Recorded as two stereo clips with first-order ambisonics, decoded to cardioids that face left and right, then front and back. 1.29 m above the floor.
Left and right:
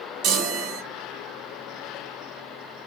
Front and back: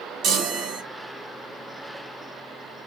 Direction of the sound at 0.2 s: 130° right.